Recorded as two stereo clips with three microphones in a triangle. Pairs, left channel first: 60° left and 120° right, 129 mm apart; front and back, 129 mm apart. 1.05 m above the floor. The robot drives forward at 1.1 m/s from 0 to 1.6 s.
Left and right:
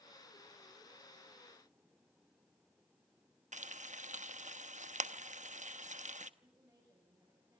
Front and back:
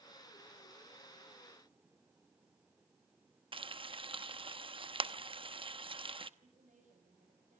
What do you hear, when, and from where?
3.5 s frying: 135° right, 0.9 m
6.4 s a woman speaking: 170° left, 7 m